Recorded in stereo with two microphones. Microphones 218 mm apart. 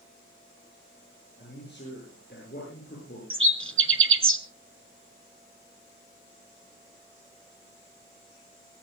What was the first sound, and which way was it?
A man speaking, 50° left (ahead or behind).